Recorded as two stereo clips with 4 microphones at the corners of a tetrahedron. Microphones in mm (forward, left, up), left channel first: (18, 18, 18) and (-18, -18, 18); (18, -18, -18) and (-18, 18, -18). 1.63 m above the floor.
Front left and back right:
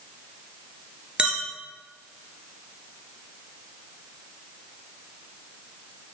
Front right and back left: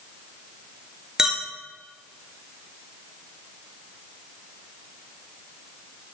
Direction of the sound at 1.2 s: 170° right.